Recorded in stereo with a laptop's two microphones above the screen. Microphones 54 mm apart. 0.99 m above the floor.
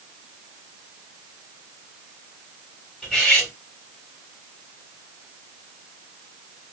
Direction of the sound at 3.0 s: Centre (ahead or behind).